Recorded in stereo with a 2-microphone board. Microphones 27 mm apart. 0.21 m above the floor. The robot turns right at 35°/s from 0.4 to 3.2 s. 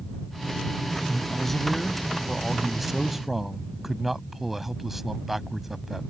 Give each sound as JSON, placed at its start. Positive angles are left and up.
{"t": 1.1, "sound": "a man speaking", "side_deg": 10}